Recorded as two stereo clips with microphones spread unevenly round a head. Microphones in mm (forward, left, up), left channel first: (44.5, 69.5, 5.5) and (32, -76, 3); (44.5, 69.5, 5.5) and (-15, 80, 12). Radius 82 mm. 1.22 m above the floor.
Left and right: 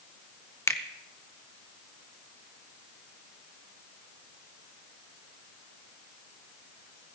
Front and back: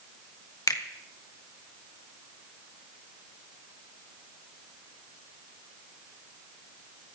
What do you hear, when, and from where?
0.7 s a finger snap: 15° left, 1.3 m